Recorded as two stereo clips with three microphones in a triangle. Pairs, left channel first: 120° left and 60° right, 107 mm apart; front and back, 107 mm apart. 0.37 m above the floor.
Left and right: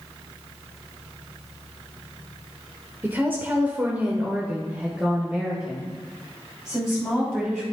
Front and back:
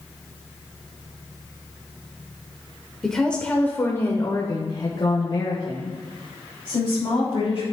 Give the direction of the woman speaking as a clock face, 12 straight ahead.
3 o'clock.